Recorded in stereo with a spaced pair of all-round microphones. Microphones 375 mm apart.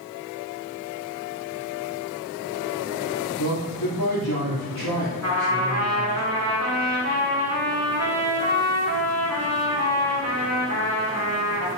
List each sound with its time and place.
3.4 s a man speaking: 70° left (ahead or behind), 3 m
5.2 s a trumpet: 45° right (ahead or behind), 4.5 m